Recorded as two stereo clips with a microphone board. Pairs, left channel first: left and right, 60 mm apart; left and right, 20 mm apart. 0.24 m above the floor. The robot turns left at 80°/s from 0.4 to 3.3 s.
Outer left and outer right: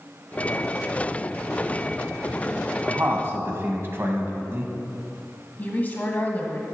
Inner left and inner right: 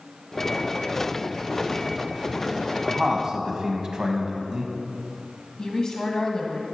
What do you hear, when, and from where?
2.9 s a man speaking: 65° right, 1.2 m; by 4.7 s 100° right, 1.2 m
5.6 s a woman speaking: 30° left (ahead or behind), 1.2 m